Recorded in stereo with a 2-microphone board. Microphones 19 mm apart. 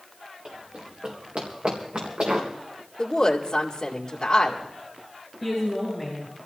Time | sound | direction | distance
0.5 | running footsteps | 65° right (ahead or behind) | 3.5 m
3.0 | a woman speaking | 40° left (ahead or behind) | 2.5 m
5.4 | a woman speaking | 10° right (ahead or behind) | 7.5 m